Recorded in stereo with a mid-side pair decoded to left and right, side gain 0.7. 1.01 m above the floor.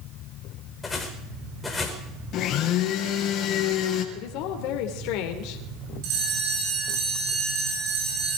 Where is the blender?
50° left, 3.5 m.